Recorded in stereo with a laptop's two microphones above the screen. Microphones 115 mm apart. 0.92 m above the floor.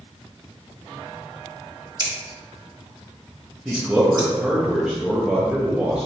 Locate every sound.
2.0 s scissors: 40° right (ahead or behind), 1.4 m
3.6 s a man speaking: 10° right (ahead or behind), 0.8 m